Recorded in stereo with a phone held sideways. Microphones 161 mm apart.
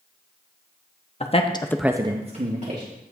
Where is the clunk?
No clunk in this recording.